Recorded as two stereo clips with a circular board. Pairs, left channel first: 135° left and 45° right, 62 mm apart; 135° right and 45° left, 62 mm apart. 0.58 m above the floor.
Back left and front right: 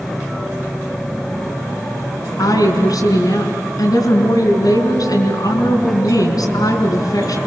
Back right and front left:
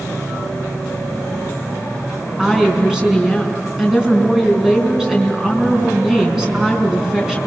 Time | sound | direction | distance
2.4 | a woman speaking | 125° left | 5 m